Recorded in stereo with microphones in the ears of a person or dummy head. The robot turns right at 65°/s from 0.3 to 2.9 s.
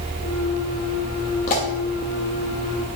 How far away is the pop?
About 0.9 m.